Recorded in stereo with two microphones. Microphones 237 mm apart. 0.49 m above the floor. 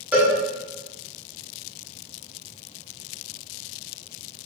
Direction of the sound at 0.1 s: 5° right (ahead or behind).